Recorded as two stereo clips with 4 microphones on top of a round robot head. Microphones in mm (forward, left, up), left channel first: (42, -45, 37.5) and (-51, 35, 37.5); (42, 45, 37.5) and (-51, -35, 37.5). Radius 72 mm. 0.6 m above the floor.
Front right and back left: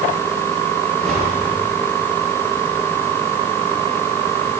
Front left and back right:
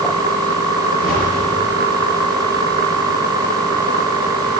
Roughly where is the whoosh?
Ahead left.